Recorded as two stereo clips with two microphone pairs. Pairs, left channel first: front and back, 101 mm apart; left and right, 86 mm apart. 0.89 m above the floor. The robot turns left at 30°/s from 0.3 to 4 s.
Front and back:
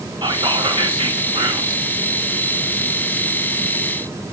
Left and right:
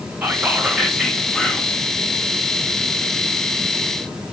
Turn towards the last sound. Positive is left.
turn(degrees=95)